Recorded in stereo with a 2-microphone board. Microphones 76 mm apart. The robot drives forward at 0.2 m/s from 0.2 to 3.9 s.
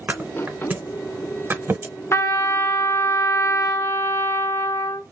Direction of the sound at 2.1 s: 35° left (ahead or behind).